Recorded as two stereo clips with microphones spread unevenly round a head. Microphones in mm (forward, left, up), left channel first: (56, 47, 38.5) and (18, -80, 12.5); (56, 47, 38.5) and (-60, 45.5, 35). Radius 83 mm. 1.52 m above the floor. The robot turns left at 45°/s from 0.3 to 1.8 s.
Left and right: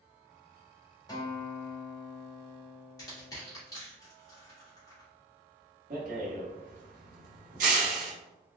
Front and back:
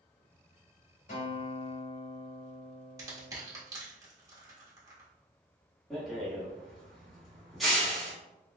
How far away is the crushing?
About 1.2 m.